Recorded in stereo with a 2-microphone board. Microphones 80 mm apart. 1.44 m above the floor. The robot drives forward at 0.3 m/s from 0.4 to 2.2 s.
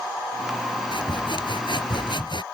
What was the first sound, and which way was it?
Sawing, 75° left (ahead or behind).